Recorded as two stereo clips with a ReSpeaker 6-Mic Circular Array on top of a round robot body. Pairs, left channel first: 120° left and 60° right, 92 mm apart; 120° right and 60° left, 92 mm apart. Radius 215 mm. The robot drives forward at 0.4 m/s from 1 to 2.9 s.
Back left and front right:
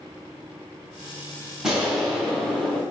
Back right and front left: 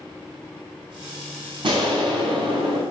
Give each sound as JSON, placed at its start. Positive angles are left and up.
{"t": 1.6, "sound": "an explosion", "azimuth_deg": 25, "distance_m": 1.3}